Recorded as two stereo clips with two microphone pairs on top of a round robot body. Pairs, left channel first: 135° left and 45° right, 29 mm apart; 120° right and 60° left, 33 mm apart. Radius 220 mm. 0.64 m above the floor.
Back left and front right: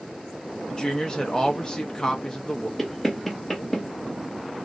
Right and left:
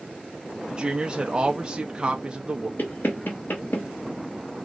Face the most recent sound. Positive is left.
turn(degrees=-145)